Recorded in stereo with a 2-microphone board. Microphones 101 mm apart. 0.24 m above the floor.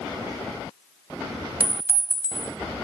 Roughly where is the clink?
Centre.